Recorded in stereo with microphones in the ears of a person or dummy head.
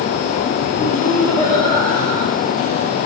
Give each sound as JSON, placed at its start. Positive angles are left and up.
{"t": 0.8, "sound": "laughter", "side_deg": 35, "distance_m": 5.5}